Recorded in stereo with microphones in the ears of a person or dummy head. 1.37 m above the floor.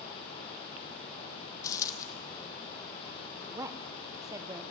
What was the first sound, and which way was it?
A dropped coin, 20° left (ahead or behind).